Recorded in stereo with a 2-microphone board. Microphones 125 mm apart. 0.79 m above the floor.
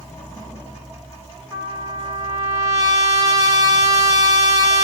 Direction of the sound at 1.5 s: 30° right (ahead or behind).